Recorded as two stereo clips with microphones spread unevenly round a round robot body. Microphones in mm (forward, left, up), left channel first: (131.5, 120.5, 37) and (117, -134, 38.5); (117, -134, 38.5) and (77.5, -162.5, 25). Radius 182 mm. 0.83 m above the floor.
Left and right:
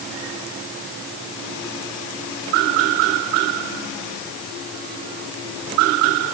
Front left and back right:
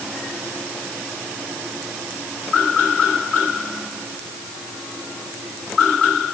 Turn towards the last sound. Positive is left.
No sound to turn to.